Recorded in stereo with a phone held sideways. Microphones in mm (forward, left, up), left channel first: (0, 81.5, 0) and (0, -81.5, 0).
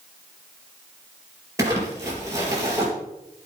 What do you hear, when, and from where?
1.6 s crumpling: 20° right (ahead or behind), 4.5 m